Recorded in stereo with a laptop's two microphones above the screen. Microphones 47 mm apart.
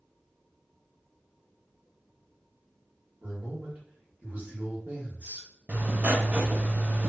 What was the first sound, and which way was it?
A man speaking, 30° right (ahead or behind).